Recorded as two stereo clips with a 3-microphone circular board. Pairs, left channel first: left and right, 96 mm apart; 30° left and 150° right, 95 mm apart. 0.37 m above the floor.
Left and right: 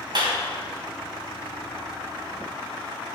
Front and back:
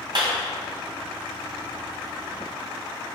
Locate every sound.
0.1 s a clap: 120° right, 2.5 m